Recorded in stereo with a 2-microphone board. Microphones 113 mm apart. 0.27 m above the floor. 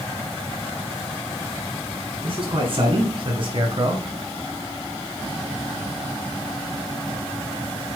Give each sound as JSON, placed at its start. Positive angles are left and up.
{"t": 2.2, "sound": "a man speaking", "side_deg": -55, "distance_m": 4.0}